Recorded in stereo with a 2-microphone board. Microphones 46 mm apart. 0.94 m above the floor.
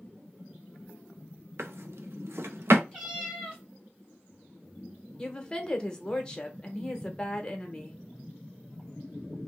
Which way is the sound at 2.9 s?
15° right (ahead or behind).